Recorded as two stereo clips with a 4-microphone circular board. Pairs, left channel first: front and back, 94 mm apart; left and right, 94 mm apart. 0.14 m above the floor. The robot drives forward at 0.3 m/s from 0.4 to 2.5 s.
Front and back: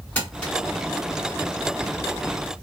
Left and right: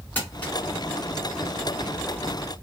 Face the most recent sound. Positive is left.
turn(degrees=105)